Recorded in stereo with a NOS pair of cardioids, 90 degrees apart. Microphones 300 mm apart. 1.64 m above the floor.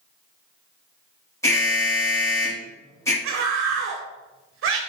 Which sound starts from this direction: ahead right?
A scream, at 3.2 s.